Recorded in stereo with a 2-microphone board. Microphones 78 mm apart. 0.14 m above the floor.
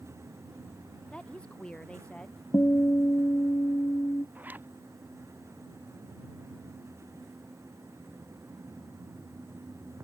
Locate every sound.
1.1 s a woman speaking: 15° left (ahead or behind)
2.5 s a guitar: 35° left (ahead or behind)
4.3 s a zipper: 20° right (ahead or behind)